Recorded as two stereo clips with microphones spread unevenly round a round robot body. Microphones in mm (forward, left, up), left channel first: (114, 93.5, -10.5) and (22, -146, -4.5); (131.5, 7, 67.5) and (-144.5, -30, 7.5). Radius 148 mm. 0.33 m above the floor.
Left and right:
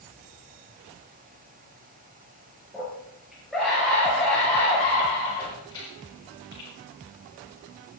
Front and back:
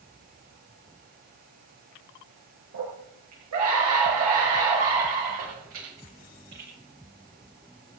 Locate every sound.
2.7 s a scream: 165° left, 5 m; by 6.7 s 140° left, 6 m